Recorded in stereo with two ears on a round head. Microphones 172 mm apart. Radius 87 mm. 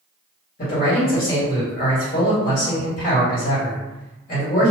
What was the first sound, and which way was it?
A man speaking, 45° left (ahead or behind).